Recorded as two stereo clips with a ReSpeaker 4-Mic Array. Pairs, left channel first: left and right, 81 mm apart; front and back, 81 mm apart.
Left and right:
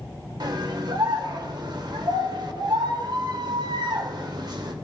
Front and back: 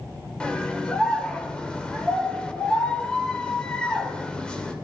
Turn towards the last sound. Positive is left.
turn(degrees=-80)